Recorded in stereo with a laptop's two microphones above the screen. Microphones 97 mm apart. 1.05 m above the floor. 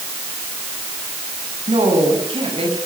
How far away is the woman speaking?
About 7.5 m.